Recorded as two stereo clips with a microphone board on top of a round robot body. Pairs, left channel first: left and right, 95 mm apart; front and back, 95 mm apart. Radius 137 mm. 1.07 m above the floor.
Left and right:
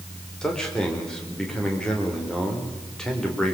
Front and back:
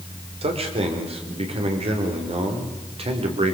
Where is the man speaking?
175° left, 4.5 m.